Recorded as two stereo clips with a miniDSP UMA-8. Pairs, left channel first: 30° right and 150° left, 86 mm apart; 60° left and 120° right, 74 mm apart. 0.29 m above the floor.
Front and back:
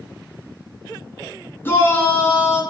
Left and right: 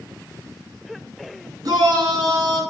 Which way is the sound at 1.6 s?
95° right.